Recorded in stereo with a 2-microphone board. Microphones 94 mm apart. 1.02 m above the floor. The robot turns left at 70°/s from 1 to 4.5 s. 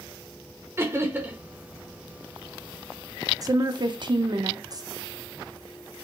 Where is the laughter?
25° right (ahead or behind), 0.7 m; by 1.4 s 15° right (ahead or behind), 0.7 m.